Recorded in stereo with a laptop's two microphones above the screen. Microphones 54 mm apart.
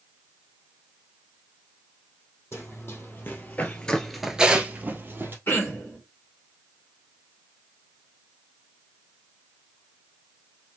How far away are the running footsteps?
About 2 m.